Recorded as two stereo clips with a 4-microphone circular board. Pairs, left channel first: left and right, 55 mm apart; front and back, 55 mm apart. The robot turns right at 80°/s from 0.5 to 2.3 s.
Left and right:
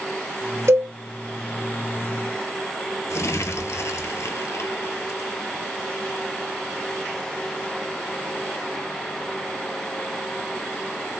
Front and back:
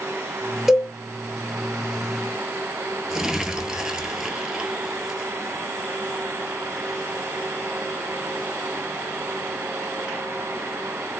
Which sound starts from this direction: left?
Crumpling, at 3.1 s.